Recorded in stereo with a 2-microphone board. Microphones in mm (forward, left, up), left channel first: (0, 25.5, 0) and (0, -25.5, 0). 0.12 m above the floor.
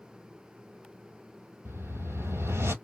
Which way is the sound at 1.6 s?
60° right (ahead or behind).